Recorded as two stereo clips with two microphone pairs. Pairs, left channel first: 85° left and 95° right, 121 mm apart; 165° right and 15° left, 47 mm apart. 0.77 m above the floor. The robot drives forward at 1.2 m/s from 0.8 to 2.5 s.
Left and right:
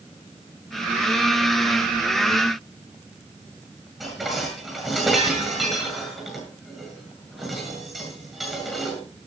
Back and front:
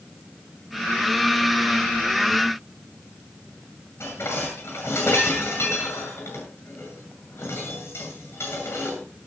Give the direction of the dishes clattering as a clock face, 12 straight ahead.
6 o'clock.